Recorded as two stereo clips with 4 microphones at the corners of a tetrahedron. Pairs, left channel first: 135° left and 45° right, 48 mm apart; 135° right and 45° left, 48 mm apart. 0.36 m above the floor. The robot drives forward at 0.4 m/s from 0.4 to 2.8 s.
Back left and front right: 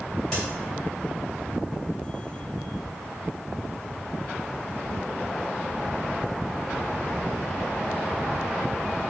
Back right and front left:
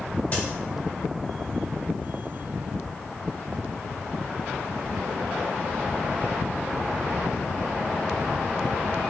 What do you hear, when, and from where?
0.3 s a crack: 150° right, 2.0 m